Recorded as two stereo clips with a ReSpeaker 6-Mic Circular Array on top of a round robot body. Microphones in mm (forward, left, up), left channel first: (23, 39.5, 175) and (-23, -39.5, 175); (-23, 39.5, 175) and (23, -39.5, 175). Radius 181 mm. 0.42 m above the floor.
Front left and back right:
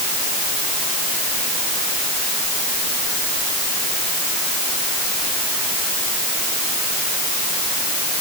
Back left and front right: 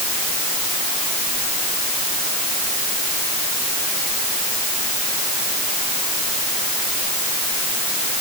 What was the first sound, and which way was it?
Only background noise.